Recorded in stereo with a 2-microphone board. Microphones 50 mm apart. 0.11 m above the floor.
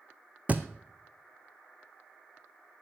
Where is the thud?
35° right (ahead or behind), 1.4 m.